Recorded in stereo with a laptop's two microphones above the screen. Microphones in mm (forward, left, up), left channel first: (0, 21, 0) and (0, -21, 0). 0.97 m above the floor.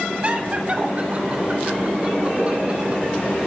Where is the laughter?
35° right (ahead or behind), 2 m; by 3.0 s 30° right (ahead or behind), 5 m.